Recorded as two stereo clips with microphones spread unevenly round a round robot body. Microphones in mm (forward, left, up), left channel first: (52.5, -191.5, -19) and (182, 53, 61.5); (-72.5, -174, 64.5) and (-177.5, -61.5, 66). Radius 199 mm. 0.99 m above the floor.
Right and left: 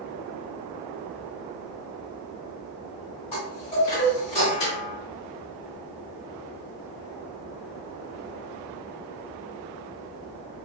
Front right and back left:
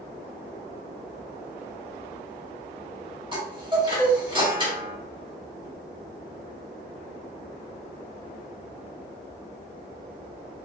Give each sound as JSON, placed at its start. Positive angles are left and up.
{"t": 3.3, "sound": "a chime", "azimuth_deg": -165, "distance_m": 1.6}